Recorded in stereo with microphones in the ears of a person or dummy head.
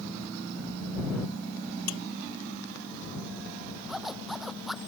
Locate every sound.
1.9 s dishes clattering: 80° left
3.9 s a zipper: centre (ahead or behind)